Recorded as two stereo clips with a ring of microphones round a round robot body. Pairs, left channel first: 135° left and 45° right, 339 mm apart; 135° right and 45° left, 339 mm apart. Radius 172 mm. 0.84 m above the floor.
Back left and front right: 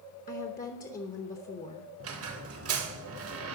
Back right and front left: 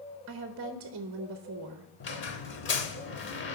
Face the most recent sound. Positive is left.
turn(degrees=-85)